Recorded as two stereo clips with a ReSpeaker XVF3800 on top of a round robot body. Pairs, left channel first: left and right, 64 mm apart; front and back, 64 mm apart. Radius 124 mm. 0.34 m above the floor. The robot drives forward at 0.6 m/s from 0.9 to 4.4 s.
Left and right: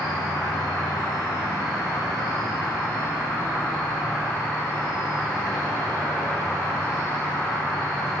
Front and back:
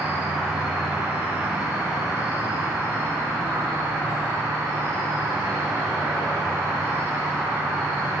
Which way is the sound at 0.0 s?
110° left.